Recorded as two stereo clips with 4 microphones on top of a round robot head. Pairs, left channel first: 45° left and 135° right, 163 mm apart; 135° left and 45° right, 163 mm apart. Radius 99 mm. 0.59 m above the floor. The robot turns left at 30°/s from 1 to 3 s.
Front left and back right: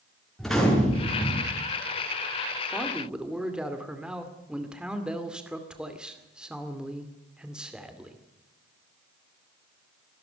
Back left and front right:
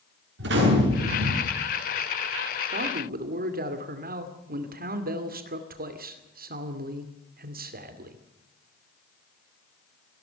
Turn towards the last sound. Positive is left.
turn(degrees=-50)